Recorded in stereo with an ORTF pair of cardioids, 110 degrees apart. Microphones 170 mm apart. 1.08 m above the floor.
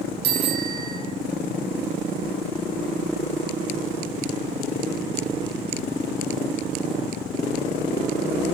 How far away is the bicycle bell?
About 8.5 m.